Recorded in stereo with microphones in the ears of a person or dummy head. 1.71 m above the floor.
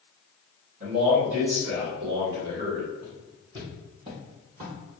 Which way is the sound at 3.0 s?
5° right (ahead or behind).